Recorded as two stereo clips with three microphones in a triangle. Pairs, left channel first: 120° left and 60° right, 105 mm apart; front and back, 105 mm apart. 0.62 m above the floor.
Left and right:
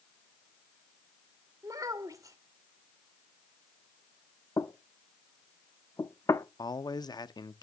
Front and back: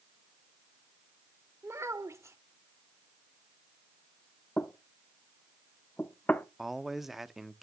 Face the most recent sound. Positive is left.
turn(degrees=90)